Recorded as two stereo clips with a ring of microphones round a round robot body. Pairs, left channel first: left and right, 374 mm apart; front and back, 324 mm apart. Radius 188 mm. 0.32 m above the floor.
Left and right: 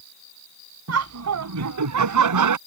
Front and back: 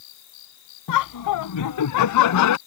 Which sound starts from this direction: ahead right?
Laughter, at 0.9 s.